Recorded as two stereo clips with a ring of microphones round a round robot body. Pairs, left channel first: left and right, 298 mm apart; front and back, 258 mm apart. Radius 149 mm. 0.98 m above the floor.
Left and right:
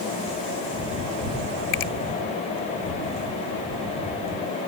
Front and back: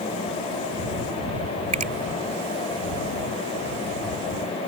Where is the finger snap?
120° left.